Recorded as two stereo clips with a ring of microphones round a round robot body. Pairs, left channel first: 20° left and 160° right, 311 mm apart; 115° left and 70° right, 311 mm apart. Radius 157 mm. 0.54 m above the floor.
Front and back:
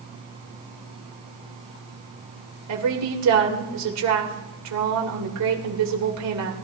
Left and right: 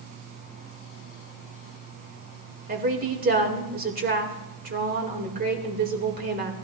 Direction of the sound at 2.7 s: 125° right.